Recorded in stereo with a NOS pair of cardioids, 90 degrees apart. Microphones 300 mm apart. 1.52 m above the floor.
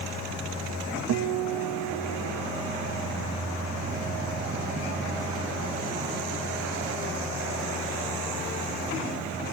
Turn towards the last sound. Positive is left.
turn(degrees=-60)